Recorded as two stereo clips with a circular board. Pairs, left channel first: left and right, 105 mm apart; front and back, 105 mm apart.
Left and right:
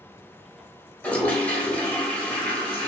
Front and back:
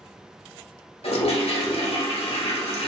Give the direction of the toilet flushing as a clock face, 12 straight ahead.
12 o'clock.